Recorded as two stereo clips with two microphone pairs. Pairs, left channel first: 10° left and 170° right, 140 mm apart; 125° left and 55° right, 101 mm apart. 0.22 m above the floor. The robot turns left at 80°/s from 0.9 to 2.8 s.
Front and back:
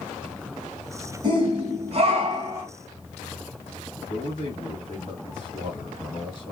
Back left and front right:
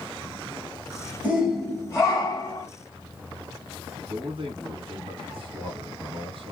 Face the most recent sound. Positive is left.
turn(degrees=-40)